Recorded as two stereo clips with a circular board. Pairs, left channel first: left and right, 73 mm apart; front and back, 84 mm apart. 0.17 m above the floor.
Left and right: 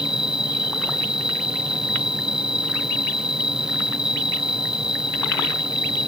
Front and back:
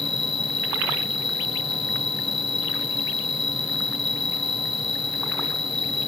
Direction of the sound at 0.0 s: 170° right.